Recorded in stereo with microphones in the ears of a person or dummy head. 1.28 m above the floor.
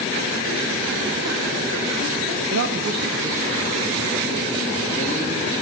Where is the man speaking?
70° right (ahead or behind), 0.7 m; by 5.6 s 10° left (ahead or behind), 3.5 m.